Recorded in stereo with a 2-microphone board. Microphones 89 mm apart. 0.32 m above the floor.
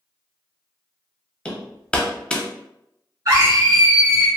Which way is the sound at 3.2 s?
45° right (ahead or behind).